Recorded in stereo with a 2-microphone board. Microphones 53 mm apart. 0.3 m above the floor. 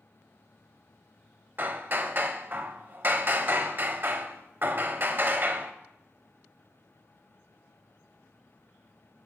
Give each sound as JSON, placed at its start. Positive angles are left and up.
{"t": 1.6, "sound": "hammering", "side_deg": -40, "distance_m": 0.6}